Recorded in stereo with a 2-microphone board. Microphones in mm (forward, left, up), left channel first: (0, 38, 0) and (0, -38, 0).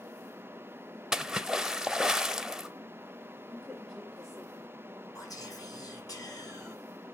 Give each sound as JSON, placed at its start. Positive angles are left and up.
{"t": 1.1, "sound": "a splash", "side_deg": -10, "distance_m": 0.7}
{"t": 3.5, "sound": "a woman speaking", "side_deg": 0, "distance_m": 1.7}
{"t": 5.2, "sound": "whispering", "side_deg": 55, "distance_m": 5.0}